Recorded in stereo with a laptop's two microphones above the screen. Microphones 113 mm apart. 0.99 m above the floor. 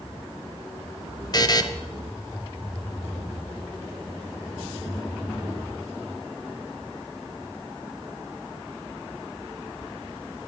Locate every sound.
1.3 s a buzzer: 35° left (ahead or behind), 0.7 m